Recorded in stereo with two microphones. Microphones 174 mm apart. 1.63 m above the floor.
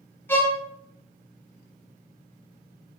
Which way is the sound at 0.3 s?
10° left (ahead or behind).